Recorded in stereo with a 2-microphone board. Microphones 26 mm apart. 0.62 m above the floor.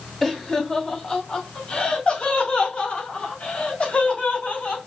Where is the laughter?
15° left (ahead or behind), 1.4 m; by 4.8 s 60° left (ahead or behind), 2.5 m.